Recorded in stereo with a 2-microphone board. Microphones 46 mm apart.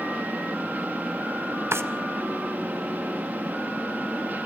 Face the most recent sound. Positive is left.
turn(degrees=-65)  # may be behind; listen again after turning